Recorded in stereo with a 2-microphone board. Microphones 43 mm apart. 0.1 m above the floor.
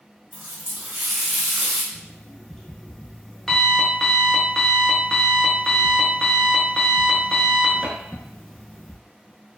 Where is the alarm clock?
10° left (ahead or behind), 0.6 m.